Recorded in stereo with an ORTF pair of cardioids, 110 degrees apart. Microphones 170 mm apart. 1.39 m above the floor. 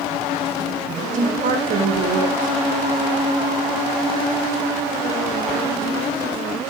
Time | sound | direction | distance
1.1 | a woman speaking | 55° right | 0.7 m